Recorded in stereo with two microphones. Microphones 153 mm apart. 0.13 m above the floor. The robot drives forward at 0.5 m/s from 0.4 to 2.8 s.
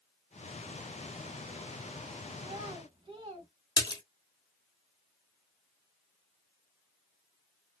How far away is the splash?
About 1.1 m.